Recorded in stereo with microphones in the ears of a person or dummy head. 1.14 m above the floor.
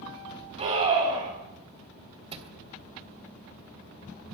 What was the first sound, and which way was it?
A scream, 35° right (ahead or behind).